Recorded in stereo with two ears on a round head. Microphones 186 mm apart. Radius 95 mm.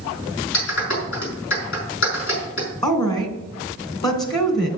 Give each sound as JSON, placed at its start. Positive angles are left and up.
{"t": 0.5, "sound": "a clap", "side_deg": 70, "distance_m": 5.0}
{"t": 2.8, "sound": "a woman speaking", "side_deg": 20, "distance_m": 2.0}